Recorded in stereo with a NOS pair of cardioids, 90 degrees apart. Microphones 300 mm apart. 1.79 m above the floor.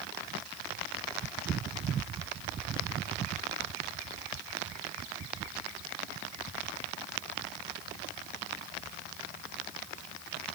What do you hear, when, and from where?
Only background noise.